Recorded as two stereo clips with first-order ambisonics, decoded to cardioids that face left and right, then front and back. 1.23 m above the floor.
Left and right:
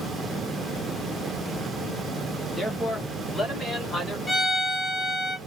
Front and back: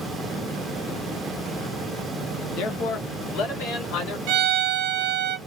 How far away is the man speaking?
About 0.8 m.